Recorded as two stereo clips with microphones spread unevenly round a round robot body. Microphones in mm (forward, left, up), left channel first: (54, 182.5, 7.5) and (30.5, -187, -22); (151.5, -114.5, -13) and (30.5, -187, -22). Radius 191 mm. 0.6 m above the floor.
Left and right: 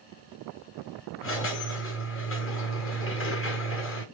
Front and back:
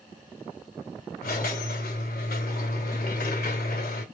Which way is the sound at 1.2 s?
30° left.